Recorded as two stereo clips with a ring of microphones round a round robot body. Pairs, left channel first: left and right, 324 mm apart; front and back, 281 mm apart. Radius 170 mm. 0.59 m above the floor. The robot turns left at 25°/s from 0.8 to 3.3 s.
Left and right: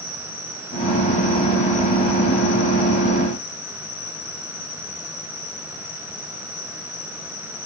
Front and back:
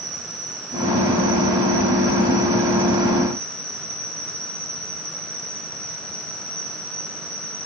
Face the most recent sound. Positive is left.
turn(degrees=100)